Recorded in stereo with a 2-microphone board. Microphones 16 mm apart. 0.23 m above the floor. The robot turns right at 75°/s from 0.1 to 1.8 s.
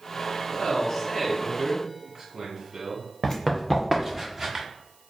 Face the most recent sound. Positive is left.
turn(degrees=-25)  # may be behind; listen again after turning